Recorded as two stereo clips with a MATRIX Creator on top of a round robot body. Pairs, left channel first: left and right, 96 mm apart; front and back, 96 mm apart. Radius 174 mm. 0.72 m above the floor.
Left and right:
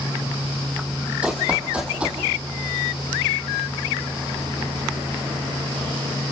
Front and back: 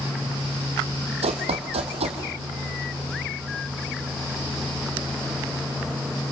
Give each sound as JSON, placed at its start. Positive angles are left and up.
{"t": 1.2, "sound": "running footsteps", "azimuth_deg": -170, "distance_m": 2.0}